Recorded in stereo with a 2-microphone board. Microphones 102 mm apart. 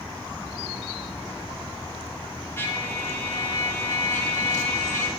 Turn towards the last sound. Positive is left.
turn(degrees=25)  # may be behind; listen again after turning